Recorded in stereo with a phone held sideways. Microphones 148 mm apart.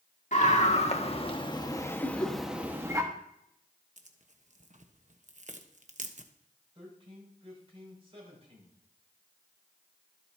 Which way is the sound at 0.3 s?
55° left (ahead or behind).